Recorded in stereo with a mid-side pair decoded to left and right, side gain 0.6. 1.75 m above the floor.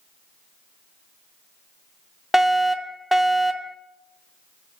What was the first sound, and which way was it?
A fire alarm, 10° left.